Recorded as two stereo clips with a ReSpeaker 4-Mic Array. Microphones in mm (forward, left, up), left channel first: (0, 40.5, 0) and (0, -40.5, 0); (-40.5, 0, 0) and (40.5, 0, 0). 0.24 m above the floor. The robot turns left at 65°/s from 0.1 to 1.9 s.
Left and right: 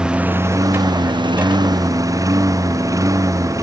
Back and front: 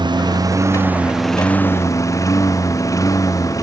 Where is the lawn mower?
10° right; by 3.6 s 135° right.